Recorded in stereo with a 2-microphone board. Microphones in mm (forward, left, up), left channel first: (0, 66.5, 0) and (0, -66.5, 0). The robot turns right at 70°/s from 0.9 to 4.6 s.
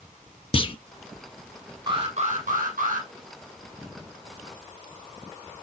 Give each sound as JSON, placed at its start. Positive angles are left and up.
{"t": 0.5, "sound": "a clunk", "side_deg": 40, "distance_m": 0.5}
{"t": 1.9, "sound": "an alarm", "azimuth_deg": -145, "distance_m": 5.5}